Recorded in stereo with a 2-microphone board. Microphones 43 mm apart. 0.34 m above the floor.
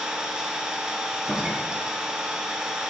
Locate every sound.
0.0 s an engine running: 20° right (ahead or behind), 1.2 m
1.1 s a door slam: 40° right (ahead or behind), 4 m